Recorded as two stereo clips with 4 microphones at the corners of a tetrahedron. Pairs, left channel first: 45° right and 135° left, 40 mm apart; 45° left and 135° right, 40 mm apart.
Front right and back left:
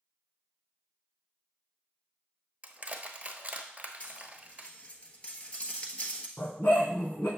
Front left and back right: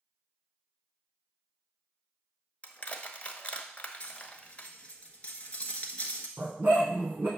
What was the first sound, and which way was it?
Crushing, 90° left.